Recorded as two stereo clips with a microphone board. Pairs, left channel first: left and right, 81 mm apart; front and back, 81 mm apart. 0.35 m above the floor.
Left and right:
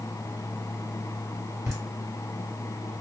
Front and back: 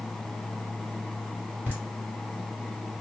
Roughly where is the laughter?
Ahead right.